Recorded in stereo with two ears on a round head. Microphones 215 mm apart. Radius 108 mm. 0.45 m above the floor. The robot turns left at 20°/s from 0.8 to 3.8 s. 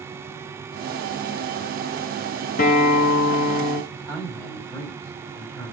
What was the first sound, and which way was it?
A guitar, 35° left (ahead or behind).